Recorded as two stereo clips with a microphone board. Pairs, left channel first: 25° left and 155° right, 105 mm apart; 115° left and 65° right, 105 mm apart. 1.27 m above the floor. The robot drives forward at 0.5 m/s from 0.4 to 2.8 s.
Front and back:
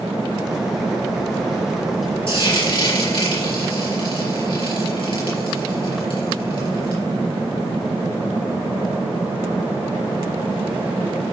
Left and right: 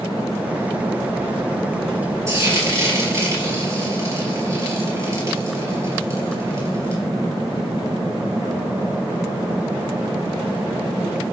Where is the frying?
10° right, 4.5 m.